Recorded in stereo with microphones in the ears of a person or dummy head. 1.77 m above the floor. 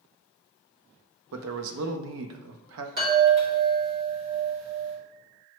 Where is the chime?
50° right (ahead or behind), 1.5 m.